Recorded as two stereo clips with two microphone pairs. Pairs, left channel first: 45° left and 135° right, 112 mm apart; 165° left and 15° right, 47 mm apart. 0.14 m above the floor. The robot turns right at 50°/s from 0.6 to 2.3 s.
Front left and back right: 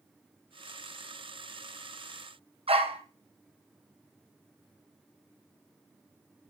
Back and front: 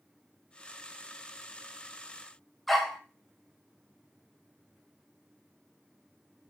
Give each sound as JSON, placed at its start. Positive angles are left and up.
{"t": 2.7, "sound": "a dog barking", "azimuth_deg": -105, "distance_m": 2.0}